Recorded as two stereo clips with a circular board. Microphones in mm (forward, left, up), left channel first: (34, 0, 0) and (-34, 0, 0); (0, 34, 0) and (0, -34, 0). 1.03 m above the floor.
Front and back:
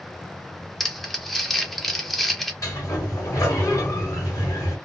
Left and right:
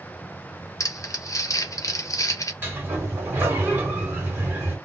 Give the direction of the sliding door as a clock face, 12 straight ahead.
1 o'clock.